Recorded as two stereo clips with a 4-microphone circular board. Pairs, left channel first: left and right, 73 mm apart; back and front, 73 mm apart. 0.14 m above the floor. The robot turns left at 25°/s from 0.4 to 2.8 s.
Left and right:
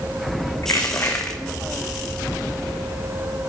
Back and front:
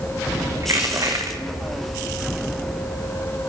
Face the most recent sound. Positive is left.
turn(degrees=-10)